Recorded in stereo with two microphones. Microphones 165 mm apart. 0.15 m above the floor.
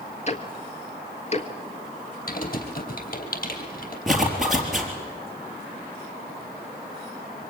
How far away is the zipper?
About 4 m.